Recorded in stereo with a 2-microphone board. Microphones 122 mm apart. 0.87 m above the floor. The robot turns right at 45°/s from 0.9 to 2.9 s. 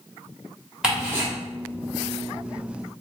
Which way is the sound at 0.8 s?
5° right (ahead or behind).